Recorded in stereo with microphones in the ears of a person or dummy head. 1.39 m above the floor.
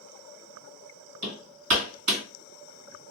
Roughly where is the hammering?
Right.